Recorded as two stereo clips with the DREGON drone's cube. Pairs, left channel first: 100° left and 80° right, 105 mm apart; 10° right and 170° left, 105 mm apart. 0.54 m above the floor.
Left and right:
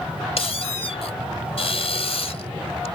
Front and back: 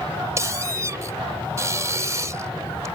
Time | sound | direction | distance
0.4 | a squeak | 110° left | ?